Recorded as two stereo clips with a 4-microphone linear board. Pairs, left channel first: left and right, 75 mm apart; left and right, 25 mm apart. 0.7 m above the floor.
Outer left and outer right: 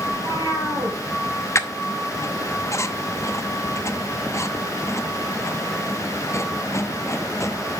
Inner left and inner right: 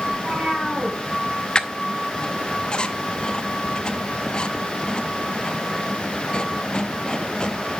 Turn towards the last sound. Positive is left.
turn(degrees=40)  # may be behind; listen again after turning